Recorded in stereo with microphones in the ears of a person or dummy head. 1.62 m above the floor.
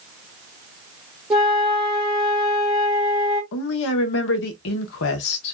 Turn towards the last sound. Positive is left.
turn(degrees=65)  # may be behind; listen again after turning